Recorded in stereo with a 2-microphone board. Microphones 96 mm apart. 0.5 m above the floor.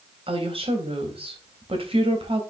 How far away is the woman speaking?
About 2.5 m.